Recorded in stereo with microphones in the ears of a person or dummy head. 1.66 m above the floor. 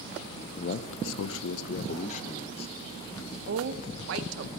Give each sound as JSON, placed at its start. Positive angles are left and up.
{"t": 0.6, "sound": "a man speaking", "side_deg": 40, "distance_m": 0.5}
{"t": 3.5, "sound": "a woman speaking", "side_deg": -75, "distance_m": 0.9}